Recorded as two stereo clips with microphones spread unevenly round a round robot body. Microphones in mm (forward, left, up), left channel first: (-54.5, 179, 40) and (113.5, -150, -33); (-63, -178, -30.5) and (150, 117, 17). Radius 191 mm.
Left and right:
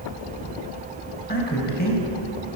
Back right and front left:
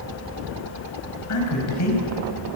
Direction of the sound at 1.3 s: 175° right.